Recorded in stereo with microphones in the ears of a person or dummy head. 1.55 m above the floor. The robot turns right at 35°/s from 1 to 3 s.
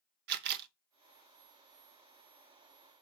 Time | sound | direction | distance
0.3 | a camera shutter | 55° right (ahead or behind) | 0.8 m